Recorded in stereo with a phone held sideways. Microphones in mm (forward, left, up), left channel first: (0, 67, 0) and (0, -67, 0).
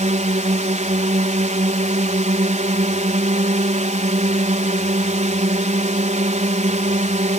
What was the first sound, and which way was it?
A drone, 65° right (ahead or behind).